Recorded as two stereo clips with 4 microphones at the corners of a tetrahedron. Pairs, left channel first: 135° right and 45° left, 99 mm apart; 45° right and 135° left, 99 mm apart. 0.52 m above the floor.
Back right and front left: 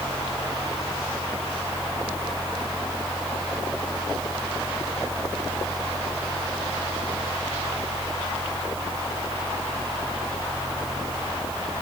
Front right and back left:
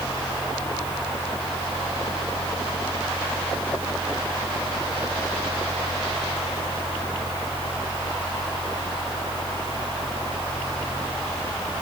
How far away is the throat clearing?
I don't hear throat clearing.